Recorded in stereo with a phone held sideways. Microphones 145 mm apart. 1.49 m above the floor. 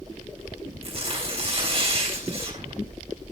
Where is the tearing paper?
45° right (ahead or behind), 3.5 m.